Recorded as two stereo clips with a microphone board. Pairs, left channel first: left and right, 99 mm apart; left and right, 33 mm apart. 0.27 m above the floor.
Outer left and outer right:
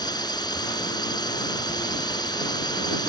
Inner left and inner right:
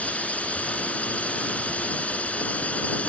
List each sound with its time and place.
0.0 s a drone: 45° left (ahead or behind)